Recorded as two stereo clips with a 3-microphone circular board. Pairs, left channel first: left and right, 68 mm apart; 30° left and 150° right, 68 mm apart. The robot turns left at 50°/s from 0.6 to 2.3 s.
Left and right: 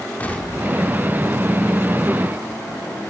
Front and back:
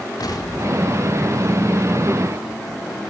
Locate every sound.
0.2 s an explosion: 25° left, 4 m; by 1.4 s 15° right, 4 m